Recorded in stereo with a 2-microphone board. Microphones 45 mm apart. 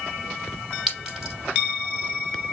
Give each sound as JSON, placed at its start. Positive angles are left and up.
{"t": 0.9, "sound": "a clink", "side_deg": -5, "distance_m": 3.0}